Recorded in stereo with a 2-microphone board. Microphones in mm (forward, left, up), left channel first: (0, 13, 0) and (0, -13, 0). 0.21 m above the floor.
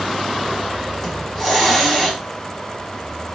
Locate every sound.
1.0 s a hiss: 5° left (ahead or behind), 1.3 m